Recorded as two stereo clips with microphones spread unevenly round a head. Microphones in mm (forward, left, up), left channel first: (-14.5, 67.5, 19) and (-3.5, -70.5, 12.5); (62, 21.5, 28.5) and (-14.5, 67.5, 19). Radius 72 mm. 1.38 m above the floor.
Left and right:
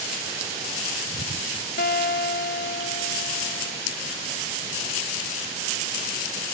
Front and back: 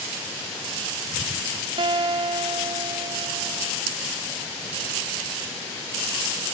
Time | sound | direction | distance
1.8 | a guitar | 115° left | 1.4 m